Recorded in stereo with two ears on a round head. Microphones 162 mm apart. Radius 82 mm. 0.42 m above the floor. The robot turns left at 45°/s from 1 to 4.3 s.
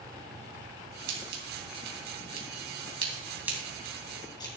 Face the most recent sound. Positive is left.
turn(degrees=25)  # may be behind; listen again after turning